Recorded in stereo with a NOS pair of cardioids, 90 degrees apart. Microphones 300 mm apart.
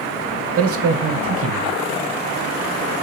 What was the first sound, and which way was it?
A man speaking, 50° right.